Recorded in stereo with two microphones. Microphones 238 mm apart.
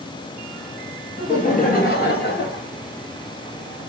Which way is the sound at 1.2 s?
30° left (ahead or behind).